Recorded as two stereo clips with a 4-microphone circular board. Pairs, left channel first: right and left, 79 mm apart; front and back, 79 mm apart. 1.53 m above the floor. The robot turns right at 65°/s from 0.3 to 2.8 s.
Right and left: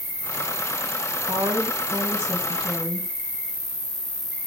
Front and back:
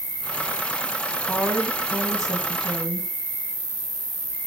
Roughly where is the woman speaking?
Left.